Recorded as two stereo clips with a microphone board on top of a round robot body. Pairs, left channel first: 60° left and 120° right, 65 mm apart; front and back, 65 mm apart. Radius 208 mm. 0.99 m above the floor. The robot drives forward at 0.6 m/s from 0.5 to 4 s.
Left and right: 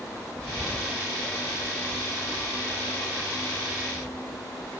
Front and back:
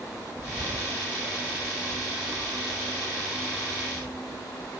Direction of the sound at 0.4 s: 125° left.